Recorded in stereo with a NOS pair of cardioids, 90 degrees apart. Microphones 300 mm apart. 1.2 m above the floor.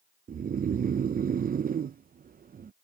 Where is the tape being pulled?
I don't hear tape being pulled.